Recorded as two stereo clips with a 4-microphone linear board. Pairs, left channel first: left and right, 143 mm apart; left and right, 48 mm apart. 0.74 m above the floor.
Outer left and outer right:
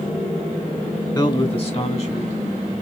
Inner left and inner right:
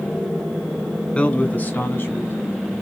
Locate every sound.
1.1 s a man speaking: 30° left (ahead or behind), 1.4 m; by 2.7 s 55° left (ahead or behind), 3 m